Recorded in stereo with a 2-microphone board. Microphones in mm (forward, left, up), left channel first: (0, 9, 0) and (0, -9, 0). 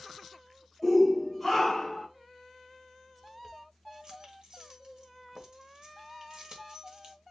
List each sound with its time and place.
0.8 s a shout: 10° right (ahead or behind), 2 m; by 2.1 s 15° left (ahead or behind), 2 m
3.2 s keys jangling: 45° right (ahead or behind), 1.2 m